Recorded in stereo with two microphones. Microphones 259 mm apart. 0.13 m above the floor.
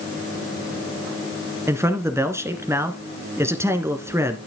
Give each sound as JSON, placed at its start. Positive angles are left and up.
{"t": 1.7, "sound": "a man speaking", "side_deg": -10, "distance_m": 1.7}